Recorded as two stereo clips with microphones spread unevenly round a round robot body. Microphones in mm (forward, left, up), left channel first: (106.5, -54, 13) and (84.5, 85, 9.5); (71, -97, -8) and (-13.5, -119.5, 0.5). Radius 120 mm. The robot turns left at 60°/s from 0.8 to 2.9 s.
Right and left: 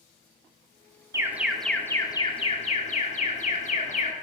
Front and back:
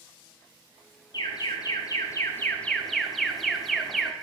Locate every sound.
1.1 s an alarm: 35° left, 1.1 m; by 4.1 s 70° right, 1.1 m